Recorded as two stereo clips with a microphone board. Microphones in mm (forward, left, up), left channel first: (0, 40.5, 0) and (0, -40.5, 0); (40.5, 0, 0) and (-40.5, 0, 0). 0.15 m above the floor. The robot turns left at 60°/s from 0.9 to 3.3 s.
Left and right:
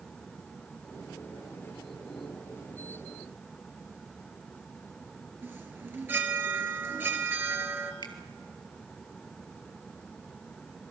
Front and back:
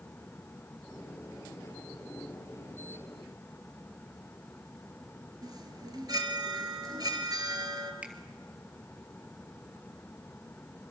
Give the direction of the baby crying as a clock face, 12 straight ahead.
I don't hear a baby crying.